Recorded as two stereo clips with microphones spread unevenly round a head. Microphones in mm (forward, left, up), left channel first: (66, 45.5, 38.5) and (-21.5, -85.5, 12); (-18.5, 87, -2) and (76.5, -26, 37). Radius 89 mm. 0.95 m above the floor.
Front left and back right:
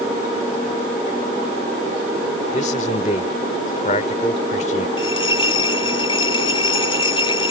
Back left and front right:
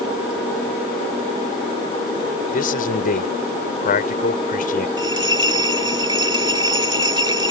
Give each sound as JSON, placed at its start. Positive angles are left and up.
{"t": 2.5, "sound": "a man speaking", "azimuth_deg": 105}
{"t": 5.0, "sound": "a bell", "azimuth_deg": 0}